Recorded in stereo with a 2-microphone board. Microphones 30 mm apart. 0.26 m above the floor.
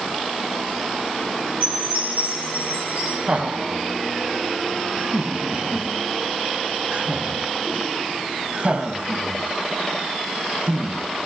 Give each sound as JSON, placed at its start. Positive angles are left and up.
{"t": 1.6, "sound": "a chime", "side_deg": -60, "distance_m": 10.0}
{"t": 3.3, "sound": "laughter", "side_deg": -40, "distance_m": 1.4}